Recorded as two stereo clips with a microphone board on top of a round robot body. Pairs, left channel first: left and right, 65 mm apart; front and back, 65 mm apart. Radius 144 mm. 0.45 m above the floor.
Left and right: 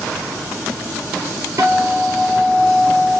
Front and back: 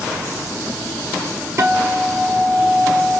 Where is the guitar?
135° right, 1.5 m.